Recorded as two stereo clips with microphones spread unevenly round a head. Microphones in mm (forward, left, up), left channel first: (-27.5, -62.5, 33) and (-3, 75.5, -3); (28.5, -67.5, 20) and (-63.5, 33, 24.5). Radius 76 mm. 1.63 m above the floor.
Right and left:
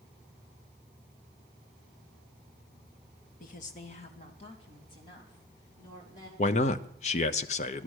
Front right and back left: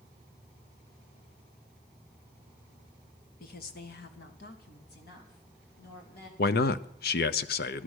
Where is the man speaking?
50° right, 0.8 m.